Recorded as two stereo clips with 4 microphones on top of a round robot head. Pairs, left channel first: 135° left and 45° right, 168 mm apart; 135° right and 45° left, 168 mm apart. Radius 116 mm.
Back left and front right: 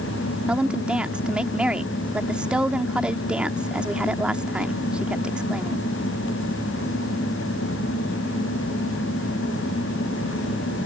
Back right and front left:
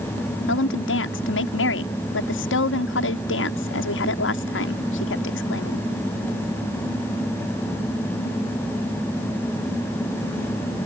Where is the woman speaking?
130° right.